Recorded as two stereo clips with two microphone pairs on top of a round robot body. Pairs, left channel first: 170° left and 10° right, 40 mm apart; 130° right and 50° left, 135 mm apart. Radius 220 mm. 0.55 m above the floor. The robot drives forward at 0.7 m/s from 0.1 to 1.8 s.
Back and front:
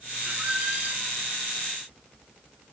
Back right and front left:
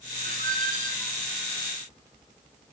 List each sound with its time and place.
0.2 s a squeak: 45° left, 2 m; by 1.2 s 60° left, 1.8 m